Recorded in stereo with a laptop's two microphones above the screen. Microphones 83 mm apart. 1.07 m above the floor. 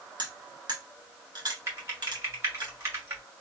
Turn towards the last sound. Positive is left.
turn(degrees=-35)  # may be behind; listen again after turning